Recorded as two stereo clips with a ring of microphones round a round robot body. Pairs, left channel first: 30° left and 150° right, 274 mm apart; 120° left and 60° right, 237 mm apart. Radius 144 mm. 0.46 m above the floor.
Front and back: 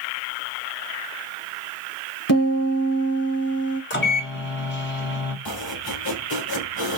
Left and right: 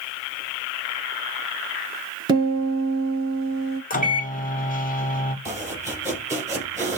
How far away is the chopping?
About 4 m.